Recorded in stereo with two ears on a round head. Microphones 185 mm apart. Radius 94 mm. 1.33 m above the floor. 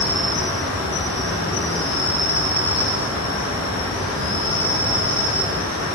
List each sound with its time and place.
0.0 s an insect: 25° left (ahead or behind), 2 m